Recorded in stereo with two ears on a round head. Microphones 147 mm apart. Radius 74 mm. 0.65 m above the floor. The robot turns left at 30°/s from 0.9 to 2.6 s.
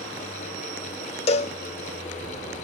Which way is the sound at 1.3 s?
40° left (ahead or behind).